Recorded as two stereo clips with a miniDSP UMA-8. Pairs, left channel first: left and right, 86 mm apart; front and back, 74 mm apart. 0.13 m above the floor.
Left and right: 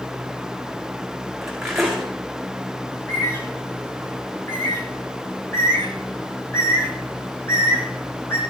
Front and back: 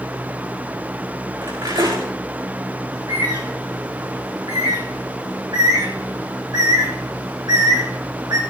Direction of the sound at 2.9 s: 150° left.